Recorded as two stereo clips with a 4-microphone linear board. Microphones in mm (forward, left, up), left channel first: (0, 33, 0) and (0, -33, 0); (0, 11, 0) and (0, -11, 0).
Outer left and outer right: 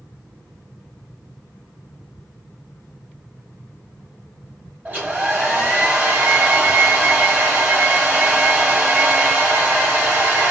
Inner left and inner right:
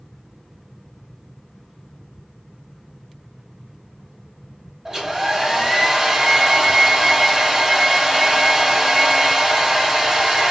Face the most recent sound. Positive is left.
turn(degrees=-30)  # may be behind; listen again after turning